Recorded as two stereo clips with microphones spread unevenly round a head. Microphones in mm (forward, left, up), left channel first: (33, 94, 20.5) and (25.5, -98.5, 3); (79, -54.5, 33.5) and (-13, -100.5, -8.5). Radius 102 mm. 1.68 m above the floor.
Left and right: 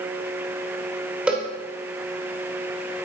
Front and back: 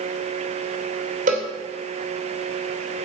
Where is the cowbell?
Straight behind, 2.5 m.